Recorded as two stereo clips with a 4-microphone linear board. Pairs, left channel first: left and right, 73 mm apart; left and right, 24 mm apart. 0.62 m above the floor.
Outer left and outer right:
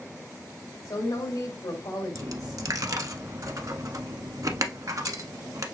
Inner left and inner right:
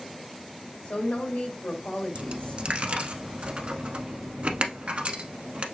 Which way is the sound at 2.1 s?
50° right (ahead or behind).